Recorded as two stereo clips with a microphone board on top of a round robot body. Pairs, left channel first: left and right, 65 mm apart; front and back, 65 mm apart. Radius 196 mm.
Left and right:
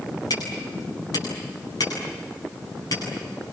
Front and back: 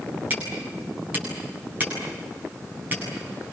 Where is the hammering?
115° left, 9 m.